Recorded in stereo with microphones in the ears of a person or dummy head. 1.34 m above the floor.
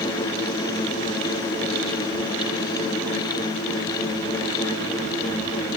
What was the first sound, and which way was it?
Only background noise.